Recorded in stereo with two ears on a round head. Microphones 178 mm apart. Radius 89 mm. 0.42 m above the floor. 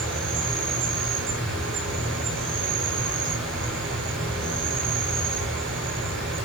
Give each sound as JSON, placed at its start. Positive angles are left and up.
{"t": 0.0, "sound": "an insect", "side_deg": -70, "distance_m": 5.5}